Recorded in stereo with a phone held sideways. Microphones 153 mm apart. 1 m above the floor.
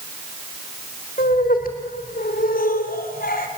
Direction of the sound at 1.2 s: 70° left (ahead or behind).